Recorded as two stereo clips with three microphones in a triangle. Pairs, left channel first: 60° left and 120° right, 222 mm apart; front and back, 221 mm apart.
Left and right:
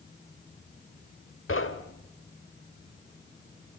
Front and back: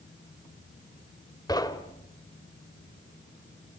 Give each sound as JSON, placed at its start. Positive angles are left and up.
{"t": 1.5, "sound": "knocking", "azimuth_deg": 75, "distance_m": 1.3}